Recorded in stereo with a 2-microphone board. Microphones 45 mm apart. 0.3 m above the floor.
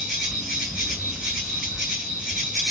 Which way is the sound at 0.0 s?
20° right (ahead or behind).